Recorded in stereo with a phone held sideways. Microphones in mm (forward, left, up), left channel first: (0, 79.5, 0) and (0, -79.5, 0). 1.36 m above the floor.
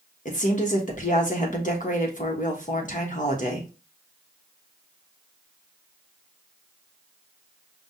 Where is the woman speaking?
50° left (ahead or behind), 1.2 m.